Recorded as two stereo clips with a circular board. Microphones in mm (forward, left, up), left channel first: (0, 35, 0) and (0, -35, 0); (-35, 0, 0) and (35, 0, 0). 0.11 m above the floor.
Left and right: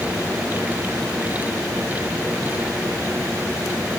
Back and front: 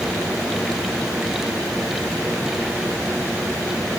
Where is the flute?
No flute in this recording.